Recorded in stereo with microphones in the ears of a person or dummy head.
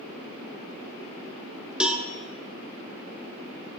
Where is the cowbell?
5° right (ahead or behind), 0.7 m.